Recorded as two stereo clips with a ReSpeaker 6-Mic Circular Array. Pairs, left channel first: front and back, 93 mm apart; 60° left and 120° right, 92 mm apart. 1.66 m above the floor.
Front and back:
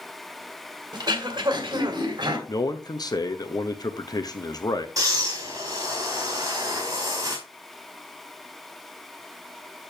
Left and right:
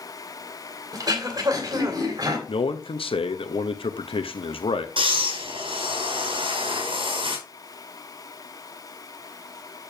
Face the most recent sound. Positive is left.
turn(degrees=-130)